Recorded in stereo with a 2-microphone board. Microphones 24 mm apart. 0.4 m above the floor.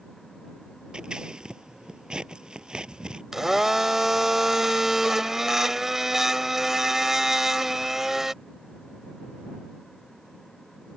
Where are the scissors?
40° right (ahead or behind).